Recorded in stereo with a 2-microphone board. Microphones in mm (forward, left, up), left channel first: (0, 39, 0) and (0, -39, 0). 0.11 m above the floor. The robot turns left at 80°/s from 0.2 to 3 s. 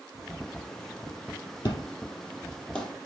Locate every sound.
1.6 s an explosion: 60° left (ahead or behind), 2.5 m; by 2.9 s 5° left (ahead or behind), 2.5 m